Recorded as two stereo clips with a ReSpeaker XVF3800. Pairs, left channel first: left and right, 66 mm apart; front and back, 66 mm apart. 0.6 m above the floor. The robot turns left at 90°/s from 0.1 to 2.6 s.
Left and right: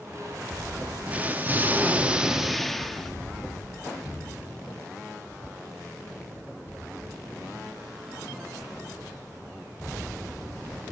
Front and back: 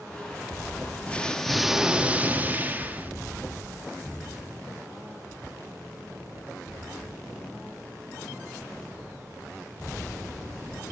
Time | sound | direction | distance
1.1 | an explosion | 45° right | 1.0 m